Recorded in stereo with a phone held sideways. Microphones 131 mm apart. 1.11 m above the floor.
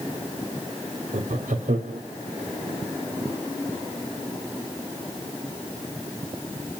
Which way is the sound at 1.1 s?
80° right.